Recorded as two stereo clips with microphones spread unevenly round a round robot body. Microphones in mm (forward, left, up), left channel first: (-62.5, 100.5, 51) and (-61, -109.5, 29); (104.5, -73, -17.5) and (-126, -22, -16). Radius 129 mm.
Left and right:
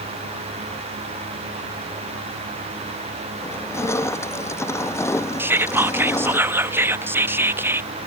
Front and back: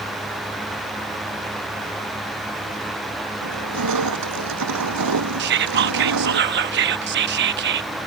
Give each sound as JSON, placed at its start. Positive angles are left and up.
{"t": 3.4, "sound": "crushing", "azimuth_deg": 165}
{"t": 5.4, "sound": "whispering", "azimuth_deg": -165}